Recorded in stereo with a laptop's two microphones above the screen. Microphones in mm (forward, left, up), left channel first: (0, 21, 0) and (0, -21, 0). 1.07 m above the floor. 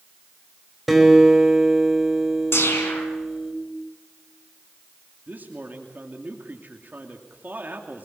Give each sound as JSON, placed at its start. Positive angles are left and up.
{"t": 0.9, "sound": "a guitar", "side_deg": 0, "distance_m": 4.0}
{"t": 2.5, "sound": "a whoosh", "side_deg": 75, "distance_m": 5.0}
{"t": 5.3, "sound": "a man speaking", "side_deg": -45, "distance_m": 2.5}